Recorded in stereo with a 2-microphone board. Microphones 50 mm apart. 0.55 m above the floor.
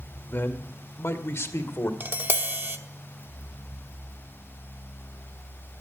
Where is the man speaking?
45° left (ahead or behind), 1.7 m; by 1.9 s 65° left (ahead or behind), 1.8 m.